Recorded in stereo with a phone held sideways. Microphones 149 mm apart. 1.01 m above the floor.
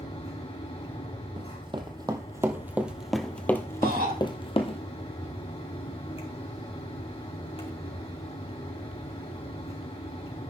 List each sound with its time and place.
0.0 s a fan: 40° left (ahead or behind), 3.5 m
1.4 s running footsteps: 35° right (ahead or behind), 1.6 m; by 4.8 s 40° left (ahead or behind), 1.4 m
3.8 s a shout: 85° right, 4 m